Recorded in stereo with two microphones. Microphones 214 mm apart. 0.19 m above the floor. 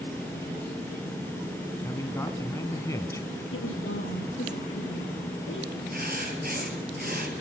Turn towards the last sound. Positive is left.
turn(degrees=-45)  # may be behind; listen again after turning